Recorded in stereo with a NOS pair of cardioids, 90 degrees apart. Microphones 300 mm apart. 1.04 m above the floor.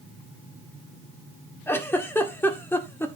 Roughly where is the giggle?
Ahead.